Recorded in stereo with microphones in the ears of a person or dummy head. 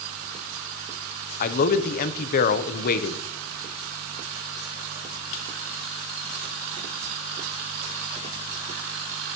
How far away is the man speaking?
About 0.8 m.